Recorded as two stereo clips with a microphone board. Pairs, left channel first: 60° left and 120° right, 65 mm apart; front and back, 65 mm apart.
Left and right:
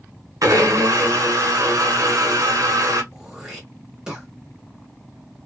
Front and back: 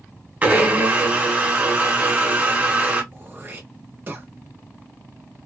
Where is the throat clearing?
170° left, 1.1 m.